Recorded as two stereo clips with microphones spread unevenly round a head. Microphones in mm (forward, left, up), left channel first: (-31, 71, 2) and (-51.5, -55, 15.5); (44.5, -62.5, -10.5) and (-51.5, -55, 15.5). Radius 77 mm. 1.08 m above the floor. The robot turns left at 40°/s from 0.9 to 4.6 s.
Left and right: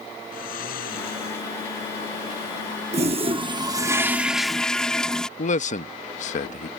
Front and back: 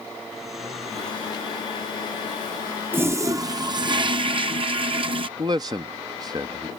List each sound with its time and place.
0.3 s snoring: 90° left; by 1.5 s 65° left
2.9 s a toilet flushing: 125° right; by 5.3 s 170° left
5.4 s a man speaking: 110° left